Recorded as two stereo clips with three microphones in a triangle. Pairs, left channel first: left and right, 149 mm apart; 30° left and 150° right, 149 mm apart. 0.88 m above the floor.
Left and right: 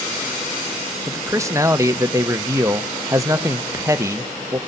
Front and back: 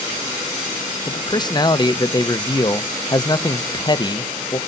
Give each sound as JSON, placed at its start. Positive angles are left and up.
{"t": 1.1, "sound": "a man speaking", "azimuth_deg": -25, "distance_m": 0.9}